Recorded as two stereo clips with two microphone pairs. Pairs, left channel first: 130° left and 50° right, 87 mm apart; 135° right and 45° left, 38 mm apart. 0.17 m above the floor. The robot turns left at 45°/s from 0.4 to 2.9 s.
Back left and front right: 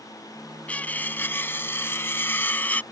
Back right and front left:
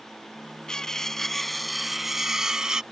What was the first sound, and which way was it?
Cutlery clinking, straight behind.